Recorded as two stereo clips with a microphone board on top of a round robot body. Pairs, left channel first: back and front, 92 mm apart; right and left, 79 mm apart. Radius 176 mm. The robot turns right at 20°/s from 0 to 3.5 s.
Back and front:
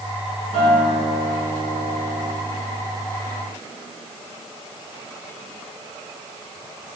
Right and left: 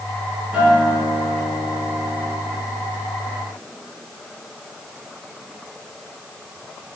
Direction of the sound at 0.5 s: 165° left.